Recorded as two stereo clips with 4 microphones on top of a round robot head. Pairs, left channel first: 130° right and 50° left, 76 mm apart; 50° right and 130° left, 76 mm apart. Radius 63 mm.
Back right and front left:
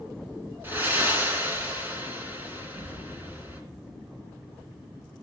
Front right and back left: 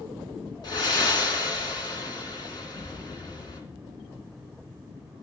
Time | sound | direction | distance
0.6 | breathing | 15° right | 3 m